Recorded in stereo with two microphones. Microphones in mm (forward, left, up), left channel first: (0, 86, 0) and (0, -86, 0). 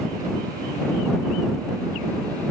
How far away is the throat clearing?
I don't hear throat clearing.